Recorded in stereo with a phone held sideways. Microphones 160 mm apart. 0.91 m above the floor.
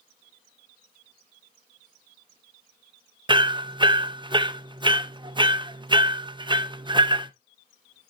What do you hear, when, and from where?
3.3 s hammering: 30° right (ahead or behind), 0.6 m